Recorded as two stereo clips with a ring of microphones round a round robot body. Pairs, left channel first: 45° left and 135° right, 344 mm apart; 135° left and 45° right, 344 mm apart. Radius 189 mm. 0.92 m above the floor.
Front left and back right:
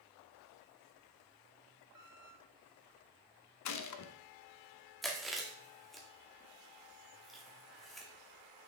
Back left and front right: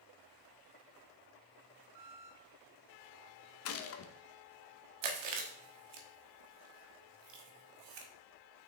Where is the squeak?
75° right, 2.0 m.